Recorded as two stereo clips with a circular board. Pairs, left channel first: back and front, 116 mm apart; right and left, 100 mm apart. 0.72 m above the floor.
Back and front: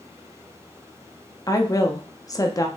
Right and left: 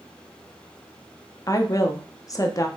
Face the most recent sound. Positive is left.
turn(degrees=-130)